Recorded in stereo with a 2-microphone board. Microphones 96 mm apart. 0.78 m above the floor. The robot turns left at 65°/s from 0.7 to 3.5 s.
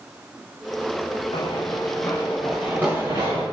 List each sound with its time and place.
1.3 s running footsteps: 65° left (ahead or behind), 4 m; by 3.4 s 55° right (ahead or behind), 7 m